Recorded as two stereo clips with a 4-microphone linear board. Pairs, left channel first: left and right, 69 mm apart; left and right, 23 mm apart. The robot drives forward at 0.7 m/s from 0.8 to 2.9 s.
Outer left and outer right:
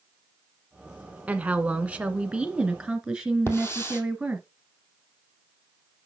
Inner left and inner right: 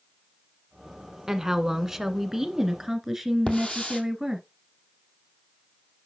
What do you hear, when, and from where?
1.3 s a woman speaking: 20° right (ahead or behind), 1.0 m; by 4.5 s 15° right (ahead or behind), 1.4 m
3.5 s a hiss: 35° left (ahead or behind), 1.8 m